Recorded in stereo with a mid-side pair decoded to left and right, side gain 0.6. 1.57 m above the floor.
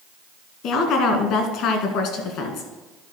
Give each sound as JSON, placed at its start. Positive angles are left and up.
{"t": 0.6, "sound": "a woman speaking", "azimuth_deg": 65, "distance_m": 2.0}